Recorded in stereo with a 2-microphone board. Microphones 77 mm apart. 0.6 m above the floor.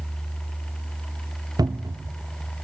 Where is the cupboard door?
60° right (ahead or behind), 0.6 m.